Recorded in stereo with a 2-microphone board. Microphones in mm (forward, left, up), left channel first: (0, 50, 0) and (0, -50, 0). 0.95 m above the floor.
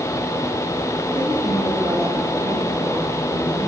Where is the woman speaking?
70° right (ahead or behind), 7.5 m.